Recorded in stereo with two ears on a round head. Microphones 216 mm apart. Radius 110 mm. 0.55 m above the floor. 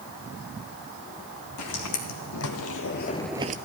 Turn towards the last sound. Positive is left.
turn(degrees=-35)  # may be behind; listen again after turning